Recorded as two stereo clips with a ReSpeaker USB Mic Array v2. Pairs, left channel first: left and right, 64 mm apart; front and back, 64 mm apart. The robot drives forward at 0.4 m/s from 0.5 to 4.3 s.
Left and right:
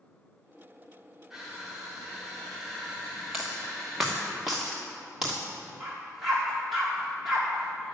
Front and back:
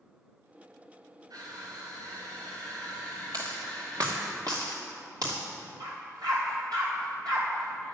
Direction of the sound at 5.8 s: 175° right.